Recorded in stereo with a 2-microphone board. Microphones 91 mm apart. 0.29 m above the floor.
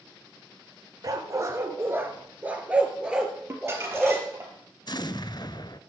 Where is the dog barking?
40° right (ahead or behind), 1.6 m; by 4.2 s centre (ahead or behind), 3 m.